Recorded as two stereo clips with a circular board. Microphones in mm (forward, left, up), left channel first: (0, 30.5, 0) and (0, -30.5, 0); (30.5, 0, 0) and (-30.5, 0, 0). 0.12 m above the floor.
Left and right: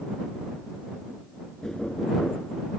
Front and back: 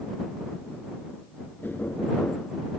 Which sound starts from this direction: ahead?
Knocking, at 1.6 s.